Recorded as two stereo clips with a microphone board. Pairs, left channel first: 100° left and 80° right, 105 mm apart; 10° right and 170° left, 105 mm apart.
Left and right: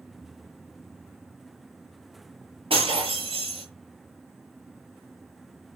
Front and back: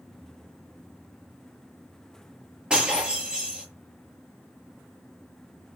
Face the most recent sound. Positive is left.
turn(degrees=-110)